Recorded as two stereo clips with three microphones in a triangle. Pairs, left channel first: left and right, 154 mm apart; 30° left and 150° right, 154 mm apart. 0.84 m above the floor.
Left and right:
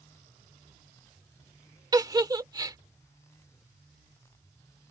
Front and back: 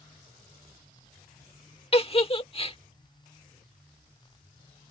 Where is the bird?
I don't hear a bird.